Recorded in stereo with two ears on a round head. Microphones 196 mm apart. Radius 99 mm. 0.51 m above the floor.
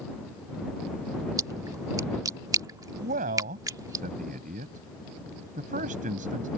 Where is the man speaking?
35° right (ahead or behind).